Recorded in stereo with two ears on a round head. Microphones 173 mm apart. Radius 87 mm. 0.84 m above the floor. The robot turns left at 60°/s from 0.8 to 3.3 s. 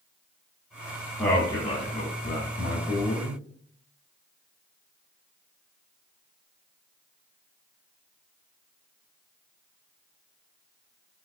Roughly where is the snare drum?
No snare drum in this recording.